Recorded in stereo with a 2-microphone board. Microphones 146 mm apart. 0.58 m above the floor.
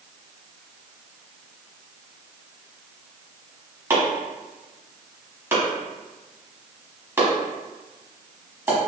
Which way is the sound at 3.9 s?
15° right (ahead or behind).